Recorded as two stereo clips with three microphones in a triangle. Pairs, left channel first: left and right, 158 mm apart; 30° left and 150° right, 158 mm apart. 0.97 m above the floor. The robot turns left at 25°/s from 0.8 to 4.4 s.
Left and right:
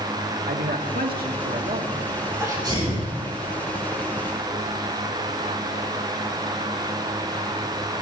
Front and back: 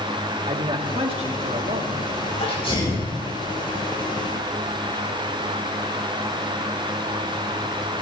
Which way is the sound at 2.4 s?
20° right.